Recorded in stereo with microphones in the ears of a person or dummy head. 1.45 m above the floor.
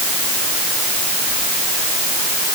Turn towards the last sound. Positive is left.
No sound to turn to.